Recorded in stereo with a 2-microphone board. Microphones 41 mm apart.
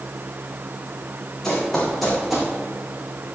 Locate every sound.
1.4 s running footsteps: 15° left (ahead or behind), 3.5 m; by 2.5 s 10° right (ahead or behind), 2.5 m